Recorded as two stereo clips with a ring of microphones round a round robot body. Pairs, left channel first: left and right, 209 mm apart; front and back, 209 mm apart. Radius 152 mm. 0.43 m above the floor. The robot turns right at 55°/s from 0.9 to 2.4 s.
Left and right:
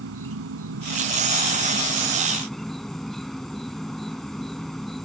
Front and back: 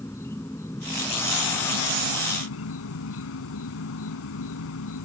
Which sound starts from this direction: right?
An insect, at 0.0 s.